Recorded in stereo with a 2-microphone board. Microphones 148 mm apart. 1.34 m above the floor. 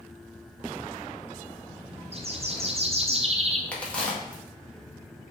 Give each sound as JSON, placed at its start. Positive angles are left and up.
{"t": 2.1, "sound": "a bird", "side_deg": -45, "distance_m": 0.6}
{"t": 3.7, "sound": "a crack", "side_deg": 10, "distance_m": 1.3}